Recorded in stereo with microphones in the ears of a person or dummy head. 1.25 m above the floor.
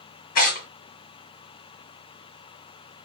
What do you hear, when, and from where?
0.3 s tearing paper: 50° left (ahead or behind), 1.4 m